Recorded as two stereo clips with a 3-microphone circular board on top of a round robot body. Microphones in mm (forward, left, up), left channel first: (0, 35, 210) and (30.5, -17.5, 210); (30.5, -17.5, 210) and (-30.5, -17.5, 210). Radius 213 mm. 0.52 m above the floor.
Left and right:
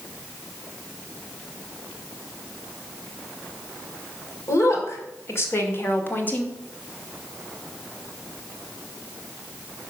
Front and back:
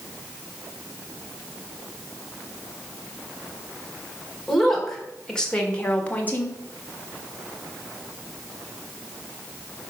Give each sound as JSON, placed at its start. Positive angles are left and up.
{"t": 4.5, "sound": "a woman speaking", "azimuth_deg": 85, "distance_m": 2.5}